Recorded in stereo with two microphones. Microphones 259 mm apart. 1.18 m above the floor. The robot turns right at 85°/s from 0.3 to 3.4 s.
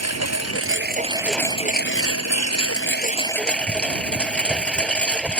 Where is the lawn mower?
90° right; by 5.4 s 175° left.